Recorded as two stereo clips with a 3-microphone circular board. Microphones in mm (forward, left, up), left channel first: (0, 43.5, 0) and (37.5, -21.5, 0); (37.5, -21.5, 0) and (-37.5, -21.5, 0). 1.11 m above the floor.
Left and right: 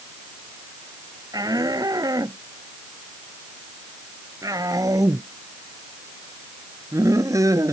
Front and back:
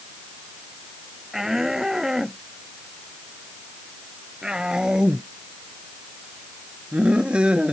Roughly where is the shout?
Right.